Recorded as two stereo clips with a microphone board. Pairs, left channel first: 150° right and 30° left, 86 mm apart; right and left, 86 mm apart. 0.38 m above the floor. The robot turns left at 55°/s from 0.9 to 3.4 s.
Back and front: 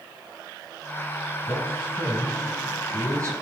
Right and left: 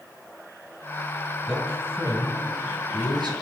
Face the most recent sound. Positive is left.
turn(degrees=70)